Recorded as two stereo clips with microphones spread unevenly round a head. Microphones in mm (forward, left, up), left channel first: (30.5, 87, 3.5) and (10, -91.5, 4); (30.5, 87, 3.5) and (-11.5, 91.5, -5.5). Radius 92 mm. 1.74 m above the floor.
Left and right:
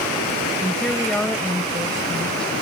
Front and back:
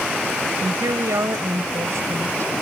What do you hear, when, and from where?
0.6 s a woman speaking: 170° left